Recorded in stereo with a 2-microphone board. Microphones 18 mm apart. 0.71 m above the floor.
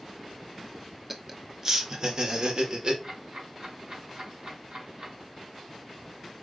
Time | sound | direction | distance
1.1 | laughter | 10° right (ahead or behind) | 1.2 m
3.0 | ticking | 60° right (ahead or behind) | 4.5 m